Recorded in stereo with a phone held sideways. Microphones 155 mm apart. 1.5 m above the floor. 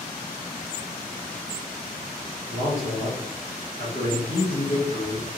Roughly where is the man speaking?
Left.